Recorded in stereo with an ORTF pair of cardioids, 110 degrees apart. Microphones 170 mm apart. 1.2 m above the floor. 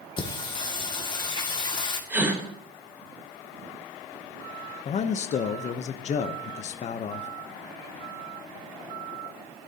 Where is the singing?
30° left, 2 m.